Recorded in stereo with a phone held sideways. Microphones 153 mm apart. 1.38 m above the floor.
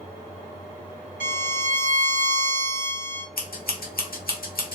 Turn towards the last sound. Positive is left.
turn(degrees=75)  # may be behind; listen again after turning